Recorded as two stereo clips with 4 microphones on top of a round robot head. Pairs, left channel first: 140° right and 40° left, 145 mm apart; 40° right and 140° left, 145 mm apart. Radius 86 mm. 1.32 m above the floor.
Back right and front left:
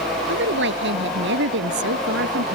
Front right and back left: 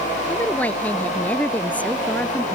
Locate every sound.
0.3 s a woman speaking: 40° left